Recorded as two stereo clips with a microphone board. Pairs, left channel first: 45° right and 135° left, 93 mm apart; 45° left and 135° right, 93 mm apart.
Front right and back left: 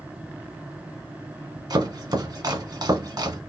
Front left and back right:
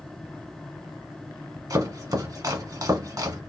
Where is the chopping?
175° left, 1.0 m.